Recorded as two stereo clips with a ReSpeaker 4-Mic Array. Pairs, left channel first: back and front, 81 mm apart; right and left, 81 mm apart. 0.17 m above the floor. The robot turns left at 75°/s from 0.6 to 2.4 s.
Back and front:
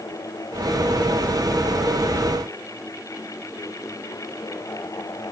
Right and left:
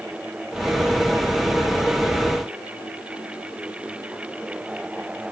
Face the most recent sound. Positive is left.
No sound to turn to.